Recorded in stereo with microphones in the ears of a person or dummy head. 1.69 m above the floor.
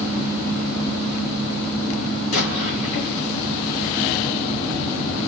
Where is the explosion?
70° left (ahead or behind), 3.5 m.